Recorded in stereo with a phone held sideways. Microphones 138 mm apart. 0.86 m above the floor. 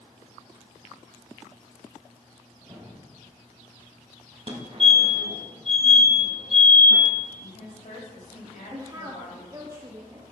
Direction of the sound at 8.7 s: 25° right (ahead or behind).